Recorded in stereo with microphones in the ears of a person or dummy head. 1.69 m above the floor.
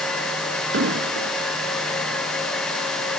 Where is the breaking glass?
I don't hear breaking glass.